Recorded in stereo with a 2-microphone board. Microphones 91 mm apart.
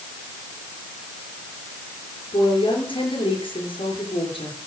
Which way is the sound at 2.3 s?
70° left (ahead or behind).